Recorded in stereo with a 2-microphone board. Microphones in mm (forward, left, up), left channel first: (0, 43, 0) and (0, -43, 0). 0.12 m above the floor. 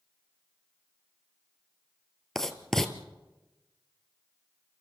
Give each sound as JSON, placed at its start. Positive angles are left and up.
{"t": 2.4, "sound": "writing", "side_deg": 5, "distance_m": 1.5}